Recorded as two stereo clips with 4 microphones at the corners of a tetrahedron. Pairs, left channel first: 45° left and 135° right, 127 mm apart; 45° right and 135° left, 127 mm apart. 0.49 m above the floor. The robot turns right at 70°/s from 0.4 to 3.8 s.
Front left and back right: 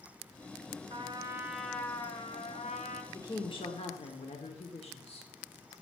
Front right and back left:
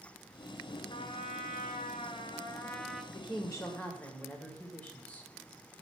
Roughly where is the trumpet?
Right.